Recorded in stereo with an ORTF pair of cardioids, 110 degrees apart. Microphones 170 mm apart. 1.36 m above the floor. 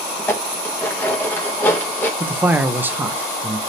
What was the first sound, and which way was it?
Dishes clattering, 10° left.